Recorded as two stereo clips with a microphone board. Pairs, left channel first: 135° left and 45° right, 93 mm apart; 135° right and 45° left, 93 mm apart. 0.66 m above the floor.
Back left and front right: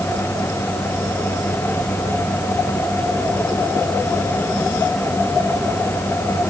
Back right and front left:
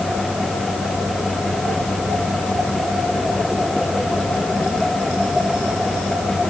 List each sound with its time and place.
Only background noise.